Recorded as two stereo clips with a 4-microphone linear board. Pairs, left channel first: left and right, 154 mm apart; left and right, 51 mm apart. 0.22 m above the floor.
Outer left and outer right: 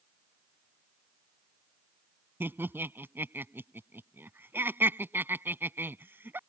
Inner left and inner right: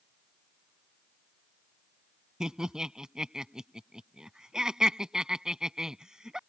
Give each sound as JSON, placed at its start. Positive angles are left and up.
{"t": 2.4, "sound": "laughter", "side_deg": -15}